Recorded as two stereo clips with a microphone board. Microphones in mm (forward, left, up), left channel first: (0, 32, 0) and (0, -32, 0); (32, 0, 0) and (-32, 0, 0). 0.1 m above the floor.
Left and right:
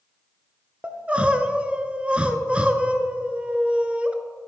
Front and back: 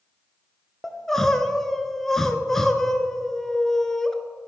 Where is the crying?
70° right, 0.5 m.